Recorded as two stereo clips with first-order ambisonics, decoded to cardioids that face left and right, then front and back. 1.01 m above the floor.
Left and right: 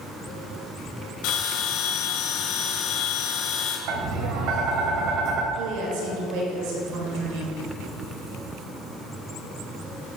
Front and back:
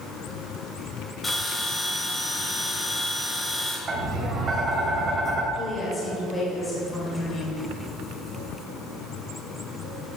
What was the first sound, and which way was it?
A bell, 80° left.